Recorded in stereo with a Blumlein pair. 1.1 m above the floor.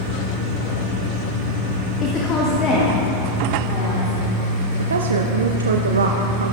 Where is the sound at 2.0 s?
25° left, 1.2 m; by 4.2 s 30° left, 3 m.